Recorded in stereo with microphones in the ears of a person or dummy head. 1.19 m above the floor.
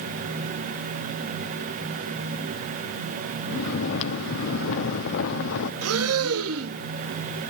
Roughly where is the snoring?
Left.